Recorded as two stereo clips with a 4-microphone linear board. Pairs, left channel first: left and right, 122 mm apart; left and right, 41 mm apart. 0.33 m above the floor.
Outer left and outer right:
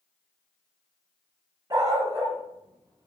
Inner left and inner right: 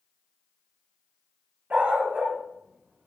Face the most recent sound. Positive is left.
turn(degrees=-35)  # may be behind; listen again after turning